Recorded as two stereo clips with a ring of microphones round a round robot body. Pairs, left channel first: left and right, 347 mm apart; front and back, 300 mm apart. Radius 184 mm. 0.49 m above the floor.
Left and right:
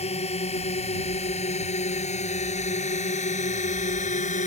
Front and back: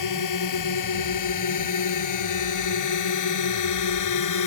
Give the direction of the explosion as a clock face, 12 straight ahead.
I don't hear an explosion.